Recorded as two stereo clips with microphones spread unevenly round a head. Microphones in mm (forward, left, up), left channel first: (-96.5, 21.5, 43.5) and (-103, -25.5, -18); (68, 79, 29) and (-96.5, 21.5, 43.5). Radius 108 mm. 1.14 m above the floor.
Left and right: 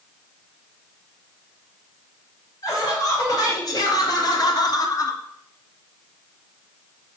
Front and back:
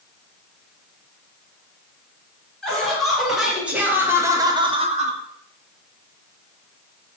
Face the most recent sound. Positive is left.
turn(degrees=170)